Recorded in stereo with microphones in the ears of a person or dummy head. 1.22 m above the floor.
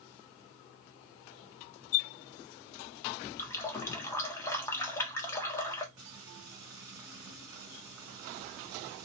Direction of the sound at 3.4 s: 10° left (ahead or behind).